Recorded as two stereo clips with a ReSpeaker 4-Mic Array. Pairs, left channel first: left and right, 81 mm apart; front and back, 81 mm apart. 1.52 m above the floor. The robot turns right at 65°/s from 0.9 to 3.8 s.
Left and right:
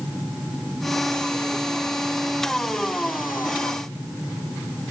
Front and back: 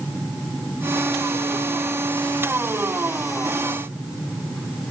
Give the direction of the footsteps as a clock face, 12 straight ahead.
No footsteps in this recording.